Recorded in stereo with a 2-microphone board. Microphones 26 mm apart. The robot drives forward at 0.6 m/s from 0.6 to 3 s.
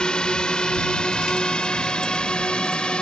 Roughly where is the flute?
I don't hear a flute.